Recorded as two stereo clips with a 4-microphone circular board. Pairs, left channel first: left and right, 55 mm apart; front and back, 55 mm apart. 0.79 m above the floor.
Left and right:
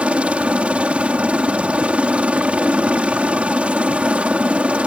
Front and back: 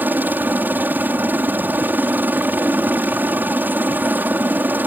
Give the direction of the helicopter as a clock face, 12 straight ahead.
5 o'clock.